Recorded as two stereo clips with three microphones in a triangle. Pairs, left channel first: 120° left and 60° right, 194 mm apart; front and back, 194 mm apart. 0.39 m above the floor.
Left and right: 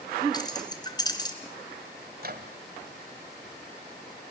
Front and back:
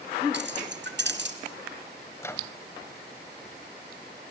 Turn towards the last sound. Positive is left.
turn(degrees=-75)